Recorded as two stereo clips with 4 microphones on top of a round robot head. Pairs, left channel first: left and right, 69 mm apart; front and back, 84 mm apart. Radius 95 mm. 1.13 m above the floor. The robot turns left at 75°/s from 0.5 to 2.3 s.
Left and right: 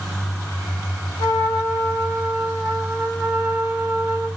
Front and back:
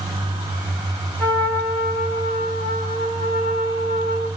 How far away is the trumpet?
About 1.6 m.